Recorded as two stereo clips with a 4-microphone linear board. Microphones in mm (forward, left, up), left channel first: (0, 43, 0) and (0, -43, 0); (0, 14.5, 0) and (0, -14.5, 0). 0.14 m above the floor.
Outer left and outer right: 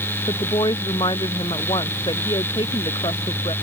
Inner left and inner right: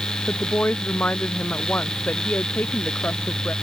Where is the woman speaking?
65° left (ahead or behind); by 3.5 s 75° left (ahead or behind).